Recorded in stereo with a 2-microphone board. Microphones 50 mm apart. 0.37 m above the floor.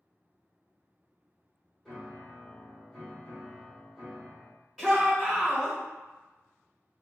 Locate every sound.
1.9 s a piano: centre (ahead or behind), 1.5 m
4.8 s a shout: 5° right (ahead or behind), 0.9 m